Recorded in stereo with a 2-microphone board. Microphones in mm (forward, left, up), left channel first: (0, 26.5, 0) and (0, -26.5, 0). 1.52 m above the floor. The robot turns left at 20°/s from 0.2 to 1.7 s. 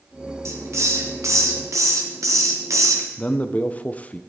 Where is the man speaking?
25° left (ahead or behind), 0.8 m.